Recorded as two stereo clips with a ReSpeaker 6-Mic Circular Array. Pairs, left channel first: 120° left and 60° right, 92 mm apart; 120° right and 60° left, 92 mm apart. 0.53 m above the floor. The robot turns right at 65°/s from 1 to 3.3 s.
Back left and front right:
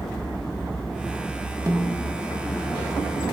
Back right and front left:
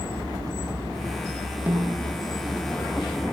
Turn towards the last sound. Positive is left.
turn(degrees=100)